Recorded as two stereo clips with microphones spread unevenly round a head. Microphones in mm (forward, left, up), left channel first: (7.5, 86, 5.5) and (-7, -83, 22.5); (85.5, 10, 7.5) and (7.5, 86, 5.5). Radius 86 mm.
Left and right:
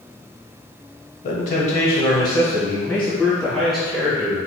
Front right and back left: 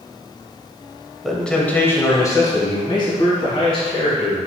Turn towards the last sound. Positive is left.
turn(degrees=-10)